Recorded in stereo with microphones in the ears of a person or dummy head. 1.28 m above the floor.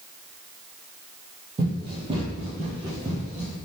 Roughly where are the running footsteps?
Right.